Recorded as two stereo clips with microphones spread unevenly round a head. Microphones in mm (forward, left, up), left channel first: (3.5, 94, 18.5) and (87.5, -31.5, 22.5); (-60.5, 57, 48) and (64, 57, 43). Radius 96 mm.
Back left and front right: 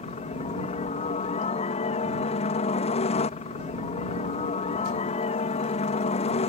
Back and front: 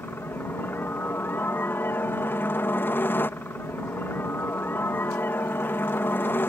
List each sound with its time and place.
0.0 s a helicopter: 115° left